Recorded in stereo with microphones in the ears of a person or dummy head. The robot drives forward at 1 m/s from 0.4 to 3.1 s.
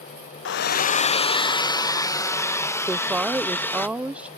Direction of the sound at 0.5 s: 70° left (ahead or behind).